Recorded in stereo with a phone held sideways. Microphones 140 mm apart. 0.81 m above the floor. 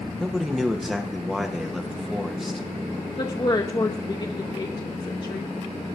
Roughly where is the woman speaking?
Left.